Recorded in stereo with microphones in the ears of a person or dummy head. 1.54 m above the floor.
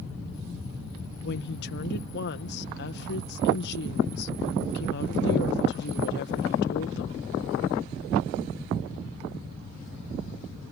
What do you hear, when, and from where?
1.2 s a woman speaking: 55° left (ahead or behind)